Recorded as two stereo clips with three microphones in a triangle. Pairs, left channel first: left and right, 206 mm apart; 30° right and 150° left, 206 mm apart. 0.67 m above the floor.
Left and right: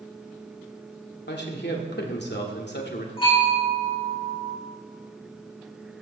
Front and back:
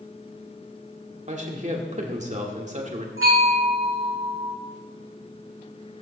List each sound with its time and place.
1.3 s a man speaking: 105° left, 2 m
3.2 s a bell: 155° left, 6.5 m